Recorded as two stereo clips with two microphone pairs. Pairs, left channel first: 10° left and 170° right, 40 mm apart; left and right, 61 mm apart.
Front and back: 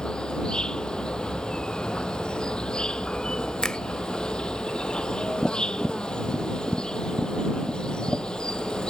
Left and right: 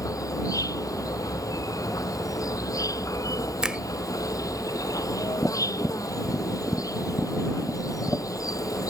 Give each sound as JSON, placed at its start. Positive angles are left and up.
{"t": 0.0, "sound": "an insect", "azimuth_deg": 80}
{"t": 3.6, "sound": "a finger snap", "azimuth_deg": -25}
{"t": 5.4, "sound": "tapping", "azimuth_deg": 75}